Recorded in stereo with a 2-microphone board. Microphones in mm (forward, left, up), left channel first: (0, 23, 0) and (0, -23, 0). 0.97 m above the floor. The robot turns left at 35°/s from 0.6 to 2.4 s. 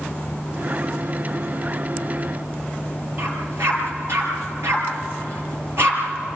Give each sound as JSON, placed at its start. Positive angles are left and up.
{"t": 3.2, "sound": "a dog barking", "side_deg": -70, "distance_m": 5.0}